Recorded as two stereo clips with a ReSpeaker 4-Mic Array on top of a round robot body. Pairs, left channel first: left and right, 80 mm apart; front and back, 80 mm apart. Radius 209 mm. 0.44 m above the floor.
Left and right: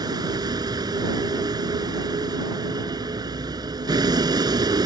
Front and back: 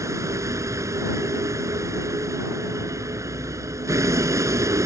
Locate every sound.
0.0 s a vehicle: 130° right